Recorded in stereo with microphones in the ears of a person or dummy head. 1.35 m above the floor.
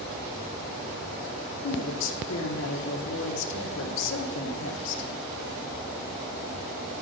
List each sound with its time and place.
1.6 s a woman speaking: 80° left, 0.9 m